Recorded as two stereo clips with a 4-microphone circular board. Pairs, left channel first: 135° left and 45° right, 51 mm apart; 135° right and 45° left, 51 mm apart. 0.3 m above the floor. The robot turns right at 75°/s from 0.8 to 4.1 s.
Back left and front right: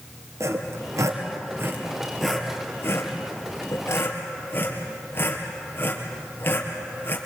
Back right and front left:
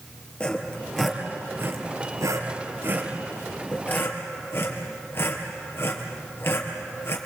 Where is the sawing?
65° right, 3 m; by 7.2 s 175° right, 3 m.